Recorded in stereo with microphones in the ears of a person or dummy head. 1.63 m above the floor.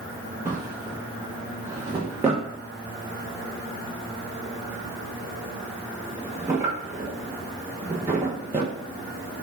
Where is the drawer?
15° right (ahead or behind), 0.8 m.